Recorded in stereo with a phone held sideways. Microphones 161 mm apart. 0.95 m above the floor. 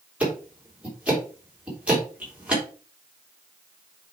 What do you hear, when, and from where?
0.2 s ticking: 10° right (ahead or behind), 3 m